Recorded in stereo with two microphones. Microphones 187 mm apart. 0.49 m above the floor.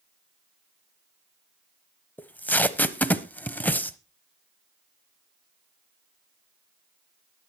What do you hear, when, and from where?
2.2 s tape being pulled: 10° left (ahead or behind), 0.9 m